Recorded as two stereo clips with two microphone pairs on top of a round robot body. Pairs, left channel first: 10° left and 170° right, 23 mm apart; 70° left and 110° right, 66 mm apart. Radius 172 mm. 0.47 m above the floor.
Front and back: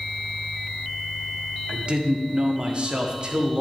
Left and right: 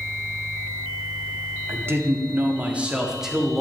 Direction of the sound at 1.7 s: 150° right.